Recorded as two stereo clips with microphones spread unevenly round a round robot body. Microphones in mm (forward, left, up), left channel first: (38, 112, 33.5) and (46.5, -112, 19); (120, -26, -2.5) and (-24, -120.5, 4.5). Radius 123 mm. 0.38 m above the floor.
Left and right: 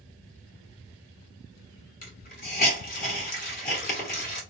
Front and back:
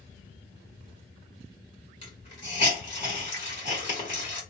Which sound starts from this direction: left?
A hiss, at 2.0 s.